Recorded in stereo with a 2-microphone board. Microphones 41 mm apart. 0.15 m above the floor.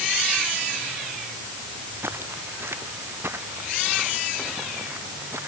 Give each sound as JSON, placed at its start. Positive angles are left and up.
{"t": 2.0, "sound": "footsteps", "side_deg": -70}